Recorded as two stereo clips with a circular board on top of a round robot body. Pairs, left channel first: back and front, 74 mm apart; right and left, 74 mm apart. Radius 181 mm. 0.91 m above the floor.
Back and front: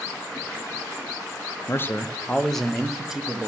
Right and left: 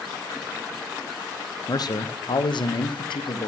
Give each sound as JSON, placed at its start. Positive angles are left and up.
{"t": 1.7, "sound": "a man speaking", "azimuth_deg": -125, "distance_m": 0.7}